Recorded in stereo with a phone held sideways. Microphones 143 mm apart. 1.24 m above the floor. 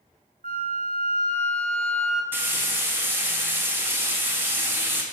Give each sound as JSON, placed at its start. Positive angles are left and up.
{"t": 0.4, "sound": "a flute", "side_deg": -70, "distance_m": 0.7}
{"t": 2.3, "sound": "frying", "side_deg": -15, "distance_m": 0.8}